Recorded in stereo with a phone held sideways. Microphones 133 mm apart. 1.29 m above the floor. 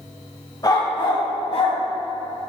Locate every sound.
0.6 s a dog barking: 35° left (ahead or behind), 1.8 m; by 1.8 s 60° left (ahead or behind), 2 m